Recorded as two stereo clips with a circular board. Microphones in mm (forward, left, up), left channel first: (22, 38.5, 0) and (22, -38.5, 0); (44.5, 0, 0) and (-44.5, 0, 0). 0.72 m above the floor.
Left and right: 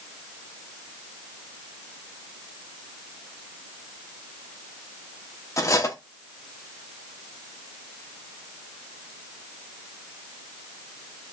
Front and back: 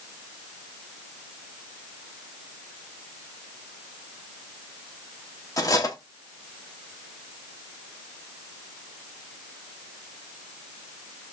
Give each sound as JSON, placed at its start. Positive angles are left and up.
{"t": 5.6, "sound": "cutlery clinking", "azimuth_deg": 45, "distance_m": 0.7}